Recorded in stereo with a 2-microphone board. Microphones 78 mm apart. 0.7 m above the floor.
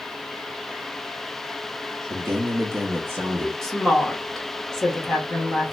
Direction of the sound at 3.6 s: 5° left (ahead or behind).